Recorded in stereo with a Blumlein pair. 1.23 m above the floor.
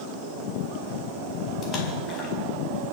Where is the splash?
30° left, 4.5 m.